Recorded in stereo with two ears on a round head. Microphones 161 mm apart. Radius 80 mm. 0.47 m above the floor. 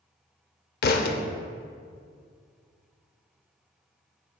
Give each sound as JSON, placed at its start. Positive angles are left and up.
{"t": 0.8, "sound": "a thud", "side_deg": 55, "distance_m": 0.5}